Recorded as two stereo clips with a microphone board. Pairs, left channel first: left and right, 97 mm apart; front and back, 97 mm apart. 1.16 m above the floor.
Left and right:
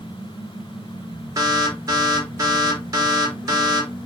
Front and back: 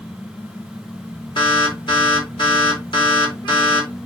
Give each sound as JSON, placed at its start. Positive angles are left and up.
{"t": 1.4, "sound": "an alarm", "azimuth_deg": -40, "distance_m": 4.0}